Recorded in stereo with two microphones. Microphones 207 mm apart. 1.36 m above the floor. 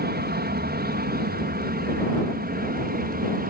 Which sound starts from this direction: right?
An aircraft, at 0.0 s.